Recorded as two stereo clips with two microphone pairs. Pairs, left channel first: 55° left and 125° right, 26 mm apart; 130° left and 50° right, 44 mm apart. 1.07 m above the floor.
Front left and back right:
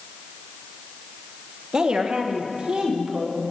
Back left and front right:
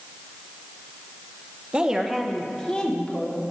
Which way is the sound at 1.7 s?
105° right.